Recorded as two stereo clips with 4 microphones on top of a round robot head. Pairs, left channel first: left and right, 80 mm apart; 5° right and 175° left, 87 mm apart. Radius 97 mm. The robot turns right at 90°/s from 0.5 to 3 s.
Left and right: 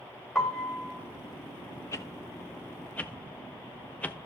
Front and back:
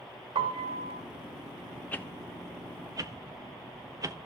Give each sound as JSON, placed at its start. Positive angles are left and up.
{"t": 0.3, "sound": "a piano", "azimuth_deg": 180, "distance_m": 1.7}
{"t": 1.9, "sound": "a whoosh", "azimuth_deg": 55, "distance_m": 0.8}